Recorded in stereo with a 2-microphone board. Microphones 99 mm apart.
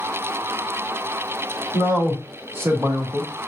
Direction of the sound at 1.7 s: 20° right (ahead or behind).